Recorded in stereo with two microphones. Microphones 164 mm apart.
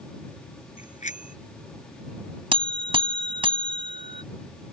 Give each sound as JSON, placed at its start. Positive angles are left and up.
{"t": 0.8, "sound": "a bicycle bell", "side_deg": 50}
{"t": 2.5, "sound": "a buzzer", "side_deg": -35}